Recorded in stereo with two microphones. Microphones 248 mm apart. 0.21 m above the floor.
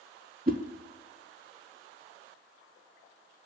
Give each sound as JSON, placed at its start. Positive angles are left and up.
{"t": 0.5, "sound": "a whoosh", "side_deg": -35, "distance_m": 0.6}